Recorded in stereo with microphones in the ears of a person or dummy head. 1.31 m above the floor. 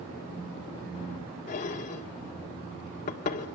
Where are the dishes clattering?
35° left (ahead or behind), 1.9 m.